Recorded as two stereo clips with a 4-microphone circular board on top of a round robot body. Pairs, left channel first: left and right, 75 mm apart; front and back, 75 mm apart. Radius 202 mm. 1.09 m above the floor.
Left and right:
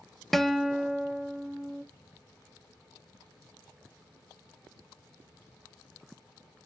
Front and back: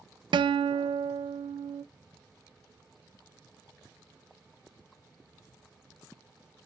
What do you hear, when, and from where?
0.3 s a guitar: 175° left, 0.6 m